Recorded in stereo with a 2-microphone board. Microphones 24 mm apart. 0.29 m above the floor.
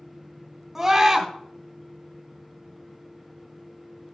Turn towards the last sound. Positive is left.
turn(degrees=-10)  # may be behind; listen again after turning